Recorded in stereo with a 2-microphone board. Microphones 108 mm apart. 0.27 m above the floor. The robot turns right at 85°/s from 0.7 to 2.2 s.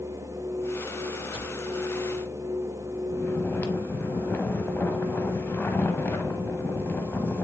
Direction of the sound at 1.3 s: 60° right (ahead or behind).